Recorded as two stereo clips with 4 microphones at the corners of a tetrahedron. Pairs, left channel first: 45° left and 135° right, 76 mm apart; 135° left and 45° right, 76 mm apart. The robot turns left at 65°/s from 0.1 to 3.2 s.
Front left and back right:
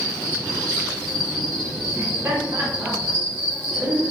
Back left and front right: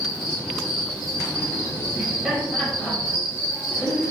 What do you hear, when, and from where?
0.0 s an insect: 50° left, 1.9 m; by 4.1 s 150° right, 1.9 m
1.9 s laughter: 90° right, 1.2 m; by 4.1 s 175° right, 1.2 m